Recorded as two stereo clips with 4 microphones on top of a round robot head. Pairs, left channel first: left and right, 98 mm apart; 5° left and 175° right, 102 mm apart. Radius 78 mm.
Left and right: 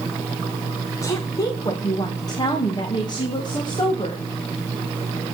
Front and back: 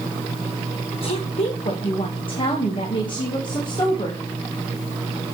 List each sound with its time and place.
1.0 s a woman speaking: 30° left, 1.3 m; by 4.2 s 50° left, 3 m